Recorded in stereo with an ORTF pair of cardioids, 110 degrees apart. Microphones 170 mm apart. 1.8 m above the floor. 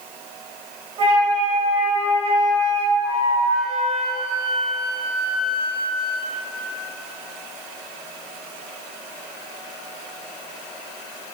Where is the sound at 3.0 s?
40° right, 1.0 m.